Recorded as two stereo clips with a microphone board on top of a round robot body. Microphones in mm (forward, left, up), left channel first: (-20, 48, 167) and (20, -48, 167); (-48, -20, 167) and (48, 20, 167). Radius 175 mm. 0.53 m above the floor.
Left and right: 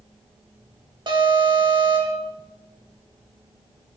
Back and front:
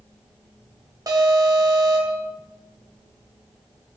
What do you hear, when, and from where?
1.1 s an alarm: 30° right, 4 m